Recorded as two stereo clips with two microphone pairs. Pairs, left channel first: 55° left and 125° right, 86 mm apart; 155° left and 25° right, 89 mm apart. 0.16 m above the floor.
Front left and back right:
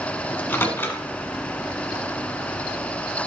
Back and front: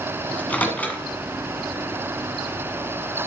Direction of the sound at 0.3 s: 95° left.